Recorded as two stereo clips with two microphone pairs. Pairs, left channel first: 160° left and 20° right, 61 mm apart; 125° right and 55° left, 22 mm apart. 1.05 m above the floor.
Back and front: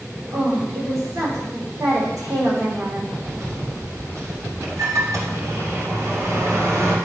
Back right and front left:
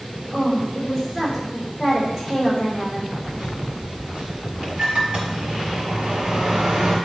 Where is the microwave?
5° left, 2 m.